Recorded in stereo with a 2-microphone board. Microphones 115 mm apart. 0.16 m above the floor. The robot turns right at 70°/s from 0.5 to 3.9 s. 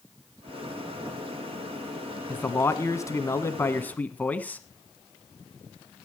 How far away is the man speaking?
About 1.1 m.